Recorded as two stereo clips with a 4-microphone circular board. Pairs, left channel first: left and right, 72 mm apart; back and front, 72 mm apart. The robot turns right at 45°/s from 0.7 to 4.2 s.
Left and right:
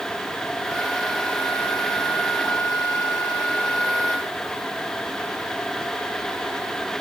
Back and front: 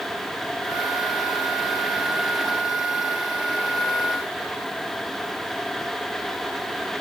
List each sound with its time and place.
Only background noise.